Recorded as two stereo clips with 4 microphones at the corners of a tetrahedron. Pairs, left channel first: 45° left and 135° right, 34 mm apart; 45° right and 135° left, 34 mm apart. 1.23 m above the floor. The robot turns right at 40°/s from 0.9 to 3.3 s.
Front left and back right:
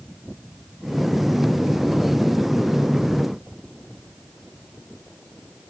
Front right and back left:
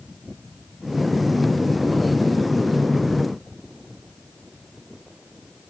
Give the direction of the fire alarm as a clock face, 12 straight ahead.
No fire alarm in this recording.